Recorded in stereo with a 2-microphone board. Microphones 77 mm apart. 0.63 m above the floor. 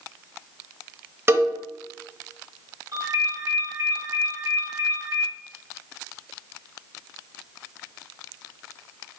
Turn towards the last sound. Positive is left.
turn(degrees=-40)  # may be behind; listen again after turning